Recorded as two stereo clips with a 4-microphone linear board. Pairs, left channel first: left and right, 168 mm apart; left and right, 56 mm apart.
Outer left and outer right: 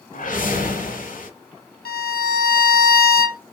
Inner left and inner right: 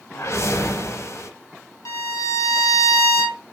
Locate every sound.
0.1 s a whoosh: 50° left (ahead or behind), 0.6 m
1.9 s a violin: 60° left (ahead or behind), 0.7 m